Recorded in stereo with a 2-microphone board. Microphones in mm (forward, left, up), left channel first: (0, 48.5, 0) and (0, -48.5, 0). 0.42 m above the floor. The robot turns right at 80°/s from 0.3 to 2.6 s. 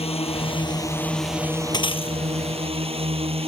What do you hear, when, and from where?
0.0 s a drone: 105° left; by 3.5 s 70° right
1.7 s breaking glass: 45° left; by 2.2 s 80° left